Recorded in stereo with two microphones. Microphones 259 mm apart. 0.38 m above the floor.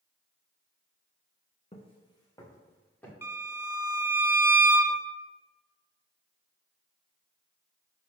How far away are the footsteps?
About 1.5 m.